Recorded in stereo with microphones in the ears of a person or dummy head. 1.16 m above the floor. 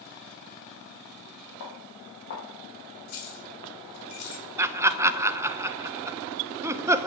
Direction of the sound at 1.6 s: 55° left (ahead or behind).